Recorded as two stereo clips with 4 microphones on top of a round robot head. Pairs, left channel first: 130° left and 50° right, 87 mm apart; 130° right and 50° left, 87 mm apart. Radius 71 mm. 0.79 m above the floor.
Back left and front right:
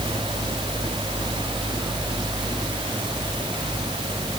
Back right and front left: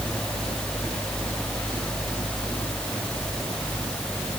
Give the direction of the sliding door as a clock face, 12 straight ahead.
No sliding door in this recording.